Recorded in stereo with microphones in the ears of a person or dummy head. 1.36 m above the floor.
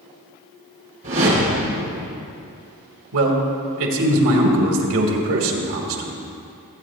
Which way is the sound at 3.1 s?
70° right (ahead or behind).